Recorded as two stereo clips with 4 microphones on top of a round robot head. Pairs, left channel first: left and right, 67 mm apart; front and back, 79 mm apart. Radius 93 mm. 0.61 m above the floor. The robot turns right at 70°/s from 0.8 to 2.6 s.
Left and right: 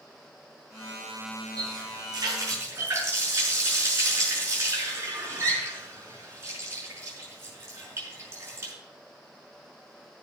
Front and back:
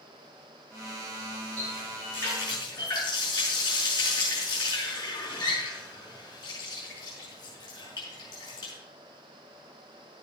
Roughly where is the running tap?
Right.